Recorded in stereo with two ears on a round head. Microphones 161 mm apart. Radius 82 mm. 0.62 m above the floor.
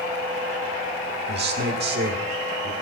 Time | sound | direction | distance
1.3 | a man speaking | 60° right (ahead or behind) | 1.7 m